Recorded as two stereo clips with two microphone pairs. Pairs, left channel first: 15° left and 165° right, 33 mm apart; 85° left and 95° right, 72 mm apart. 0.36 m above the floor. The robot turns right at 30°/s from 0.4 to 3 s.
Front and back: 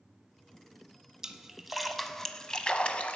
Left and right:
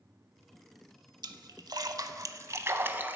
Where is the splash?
90° right, 0.5 m; by 3.2 s 35° right, 0.5 m.